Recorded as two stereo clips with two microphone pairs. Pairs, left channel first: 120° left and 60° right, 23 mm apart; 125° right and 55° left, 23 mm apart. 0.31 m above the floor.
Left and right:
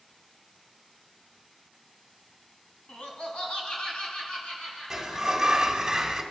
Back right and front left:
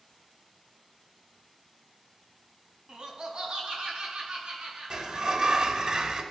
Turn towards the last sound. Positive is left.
turn(degrees=10)